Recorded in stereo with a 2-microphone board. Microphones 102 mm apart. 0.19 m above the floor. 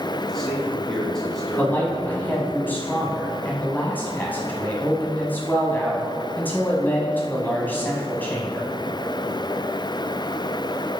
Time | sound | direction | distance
0.2 | a man speaking | 5° left (ahead or behind) | 1.9 m
1.6 | a man speaking | 20° left (ahead or behind) | 1.1 m